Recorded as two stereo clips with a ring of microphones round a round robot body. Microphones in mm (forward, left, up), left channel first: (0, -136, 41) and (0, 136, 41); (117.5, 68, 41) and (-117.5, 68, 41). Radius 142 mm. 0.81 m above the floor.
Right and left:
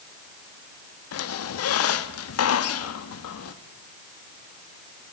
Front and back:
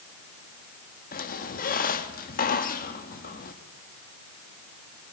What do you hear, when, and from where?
1.1 s a squeak: 55° right, 1.1 m